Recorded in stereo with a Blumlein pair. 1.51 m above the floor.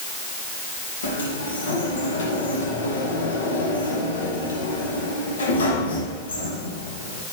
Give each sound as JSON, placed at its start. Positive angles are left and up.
{"t": 1.0, "sound": "a sliding door", "azimuth_deg": 70, "distance_m": 1.9}